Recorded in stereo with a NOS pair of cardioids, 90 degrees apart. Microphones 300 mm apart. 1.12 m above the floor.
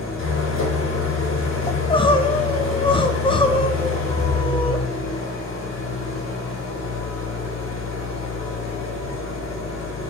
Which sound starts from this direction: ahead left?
An engine running, at 0.0 s.